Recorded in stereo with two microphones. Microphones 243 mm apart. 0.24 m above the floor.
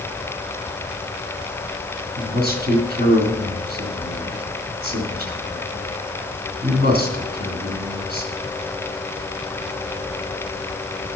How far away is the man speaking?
About 2.5 m.